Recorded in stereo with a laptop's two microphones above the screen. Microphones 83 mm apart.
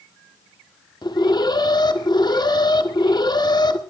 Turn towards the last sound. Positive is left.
turn(degrees=60)  # may be behind; listen again after turning